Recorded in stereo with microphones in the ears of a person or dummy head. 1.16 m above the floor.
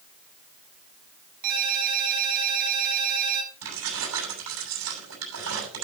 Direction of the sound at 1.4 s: 55° right (ahead or behind).